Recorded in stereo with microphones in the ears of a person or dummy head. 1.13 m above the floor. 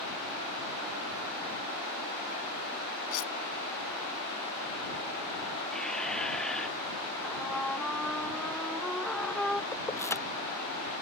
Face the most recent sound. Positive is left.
turn(degrees=15)  # may be behind; listen again after turning